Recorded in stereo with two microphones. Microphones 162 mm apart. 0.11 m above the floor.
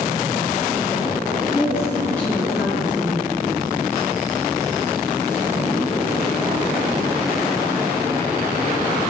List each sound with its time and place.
1.5 s a woman speaking: 25° left (ahead or behind), 1.7 m; by 3.4 s 15° right (ahead or behind), 2 m